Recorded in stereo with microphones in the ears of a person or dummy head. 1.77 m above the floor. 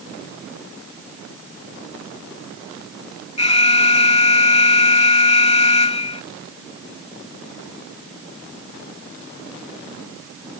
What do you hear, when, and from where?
3.4 s an alarm: 30° left (ahead or behind)